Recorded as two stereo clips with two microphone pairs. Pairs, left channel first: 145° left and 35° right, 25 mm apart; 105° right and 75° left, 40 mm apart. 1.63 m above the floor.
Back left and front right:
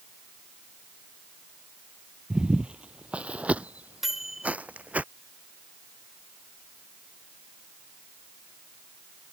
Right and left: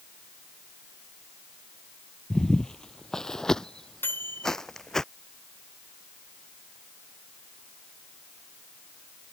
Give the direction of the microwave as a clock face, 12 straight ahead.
4 o'clock.